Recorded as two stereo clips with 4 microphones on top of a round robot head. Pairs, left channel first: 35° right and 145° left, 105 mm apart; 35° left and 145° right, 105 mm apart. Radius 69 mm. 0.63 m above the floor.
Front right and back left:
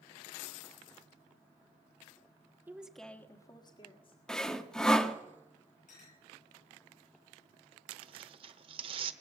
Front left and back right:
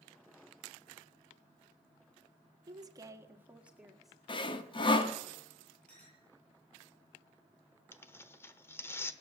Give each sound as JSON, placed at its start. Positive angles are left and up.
{"t": 2.7, "sound": "a woman speaking", "azimuth_deg": -155, "distance_m": 1.4}
{"t": 4.3, "sound": "sawing", "azimuth_deg": 45, "distance_m": 1.2}
{"t": 5.9, "sound": "a clink", "azimuth_deg": -40, "distance_m": 9.0}
{"t": 7.9, "sound": "tearing paper", "azimuth_deg": 105, "distance_m": 1.0}